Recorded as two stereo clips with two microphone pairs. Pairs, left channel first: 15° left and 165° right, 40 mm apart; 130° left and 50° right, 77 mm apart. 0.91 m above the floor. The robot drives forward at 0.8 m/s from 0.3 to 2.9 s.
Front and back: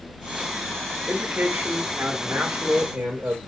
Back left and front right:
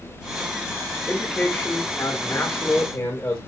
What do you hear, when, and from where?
1.1 s a man speaking: 165° right, 1.3 m; by 3.4 s 175° right, 2.5 m